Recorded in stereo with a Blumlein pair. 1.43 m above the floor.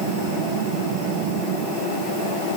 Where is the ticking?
I don't hear ticking.